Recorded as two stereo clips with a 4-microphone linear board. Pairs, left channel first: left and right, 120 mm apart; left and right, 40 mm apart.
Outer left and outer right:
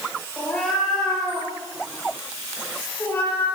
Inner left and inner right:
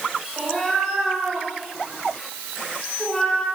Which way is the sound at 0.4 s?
5° left (ahead or behind).